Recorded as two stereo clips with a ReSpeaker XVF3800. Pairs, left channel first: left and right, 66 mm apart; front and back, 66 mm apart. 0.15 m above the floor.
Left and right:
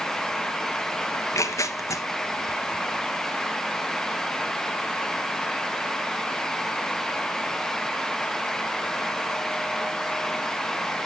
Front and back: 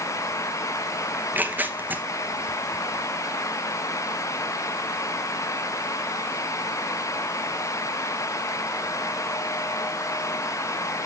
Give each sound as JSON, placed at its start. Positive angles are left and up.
{"t": 1.1, "sound": "tearing paper", "azimuth_deg": 120, "distance_m": 1.0}